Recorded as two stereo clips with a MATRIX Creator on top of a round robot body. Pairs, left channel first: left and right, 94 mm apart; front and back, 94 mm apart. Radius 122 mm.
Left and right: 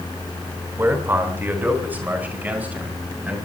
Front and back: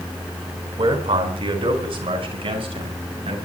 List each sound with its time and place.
0.8 s a man speaking: 155° right, 4 m; by 3.4 s 165° right, 6.5 m